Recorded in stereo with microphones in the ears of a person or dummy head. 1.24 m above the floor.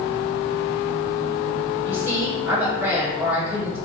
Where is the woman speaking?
10° right (ahead or behind), 1.3 m.